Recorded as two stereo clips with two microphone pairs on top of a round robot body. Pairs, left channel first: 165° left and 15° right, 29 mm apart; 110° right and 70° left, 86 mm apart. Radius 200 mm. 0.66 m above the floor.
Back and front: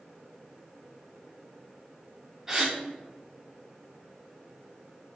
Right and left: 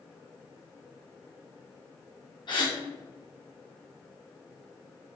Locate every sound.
2.5 s a gasp: 85° right, 3 m